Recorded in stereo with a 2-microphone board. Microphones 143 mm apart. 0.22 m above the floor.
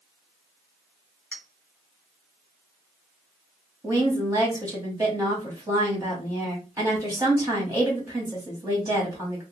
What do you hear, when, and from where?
1.3 s a clink: 10° left (ahead or behind), 1.1 m
3.8 s a woman speaking: 25° right (ahead or behind), 1.4 m